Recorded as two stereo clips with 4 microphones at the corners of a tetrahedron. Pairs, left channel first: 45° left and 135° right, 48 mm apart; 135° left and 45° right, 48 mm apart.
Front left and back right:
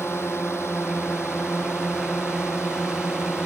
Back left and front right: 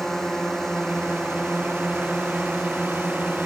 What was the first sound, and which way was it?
A drone, 55° left.